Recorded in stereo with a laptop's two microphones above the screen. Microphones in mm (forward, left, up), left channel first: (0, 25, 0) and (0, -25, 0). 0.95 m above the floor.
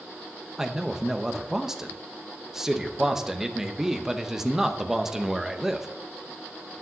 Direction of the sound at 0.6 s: 10° right (ahead or behind).